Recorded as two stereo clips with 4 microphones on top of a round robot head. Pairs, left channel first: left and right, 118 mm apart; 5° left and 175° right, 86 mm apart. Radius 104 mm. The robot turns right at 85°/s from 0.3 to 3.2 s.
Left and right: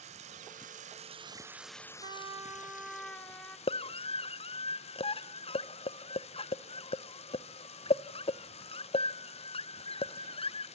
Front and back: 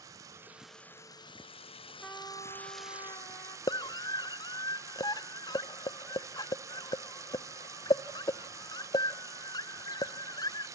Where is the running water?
120° right, 0.7 m; by 10.8 s 125° left, 0.7 m.